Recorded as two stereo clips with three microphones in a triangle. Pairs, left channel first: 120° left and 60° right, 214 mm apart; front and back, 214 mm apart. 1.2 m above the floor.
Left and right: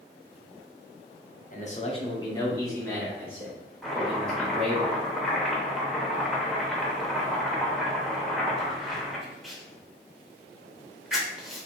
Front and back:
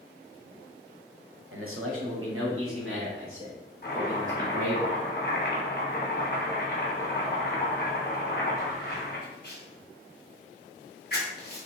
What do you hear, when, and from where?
1.5 s a man speaking: 165° left, 0.6 m; by 4.8 s 155° right, 2.5 m
3.8 s chopping: 30° left, 0.8 m